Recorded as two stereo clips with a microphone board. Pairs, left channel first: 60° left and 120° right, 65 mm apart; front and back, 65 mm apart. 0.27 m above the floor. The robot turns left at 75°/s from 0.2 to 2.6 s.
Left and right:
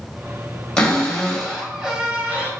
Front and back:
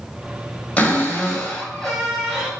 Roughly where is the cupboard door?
Ahead.